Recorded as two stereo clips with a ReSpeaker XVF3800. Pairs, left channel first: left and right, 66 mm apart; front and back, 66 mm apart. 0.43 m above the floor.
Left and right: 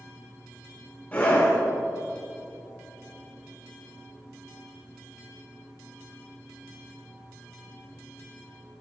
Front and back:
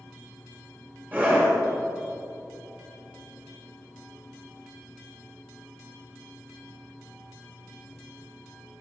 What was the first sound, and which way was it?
A scream, 140° left.